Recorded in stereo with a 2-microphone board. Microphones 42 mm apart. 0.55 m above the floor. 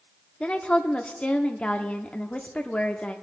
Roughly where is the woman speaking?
Left.